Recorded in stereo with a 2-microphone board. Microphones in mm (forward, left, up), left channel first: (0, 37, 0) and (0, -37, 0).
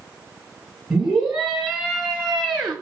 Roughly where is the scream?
Centre.